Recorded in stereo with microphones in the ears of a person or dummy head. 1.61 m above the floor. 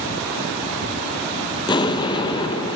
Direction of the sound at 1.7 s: 25° left (ahead or behind).